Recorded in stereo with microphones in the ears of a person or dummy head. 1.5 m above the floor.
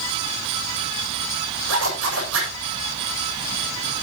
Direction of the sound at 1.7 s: 75° right (ahead or behind).